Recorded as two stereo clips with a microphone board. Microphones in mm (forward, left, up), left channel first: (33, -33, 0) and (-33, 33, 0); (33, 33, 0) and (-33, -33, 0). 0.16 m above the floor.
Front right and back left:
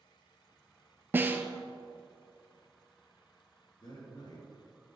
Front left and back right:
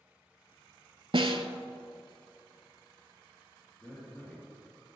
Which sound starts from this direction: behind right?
A snare drum, at 1.1 s.